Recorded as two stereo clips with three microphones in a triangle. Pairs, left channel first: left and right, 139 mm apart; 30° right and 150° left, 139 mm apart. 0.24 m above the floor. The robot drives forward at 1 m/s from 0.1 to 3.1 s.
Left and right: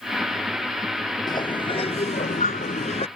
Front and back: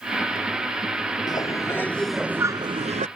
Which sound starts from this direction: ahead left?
A bird, at 1.3 s.